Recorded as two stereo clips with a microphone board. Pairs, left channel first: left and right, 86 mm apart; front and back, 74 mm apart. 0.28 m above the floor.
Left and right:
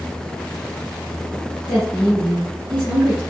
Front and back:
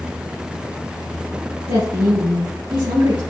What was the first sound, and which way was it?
A woman speaking, 160° right.